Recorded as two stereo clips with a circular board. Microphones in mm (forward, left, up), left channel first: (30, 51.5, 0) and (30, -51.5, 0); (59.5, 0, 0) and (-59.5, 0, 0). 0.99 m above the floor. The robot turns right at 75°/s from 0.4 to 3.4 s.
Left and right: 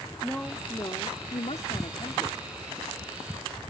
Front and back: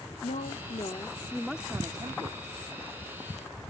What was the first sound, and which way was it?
A woman speaking, 10° left.